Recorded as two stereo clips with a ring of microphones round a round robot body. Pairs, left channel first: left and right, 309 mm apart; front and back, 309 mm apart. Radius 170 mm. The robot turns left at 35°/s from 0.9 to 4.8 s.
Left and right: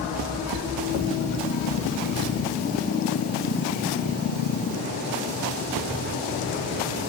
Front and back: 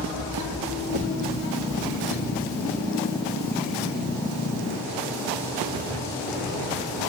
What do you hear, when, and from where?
0.9 s a thud: 40° left, 1.3 m; by 1.2 s 30° left, 1.3 m